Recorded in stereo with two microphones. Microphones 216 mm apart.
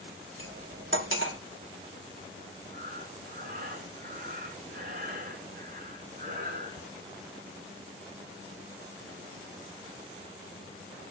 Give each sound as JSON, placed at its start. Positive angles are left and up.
{"t": 0.4, "sound": "cutlery clinking", "side_deg": -70, "distance_m": 1.7}
{"t": 2.7, "sound": "breathing", "side_deg": -45, "distance_m": 2.5}